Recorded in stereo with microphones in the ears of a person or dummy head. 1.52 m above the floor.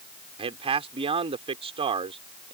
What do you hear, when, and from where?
0.4 s a man speaking: 25° right (ahead or behind)